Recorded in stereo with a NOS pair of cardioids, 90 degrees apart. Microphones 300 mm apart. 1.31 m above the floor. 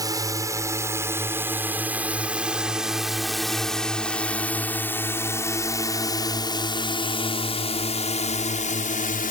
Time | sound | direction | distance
0.0 | a drone | 10° right | ?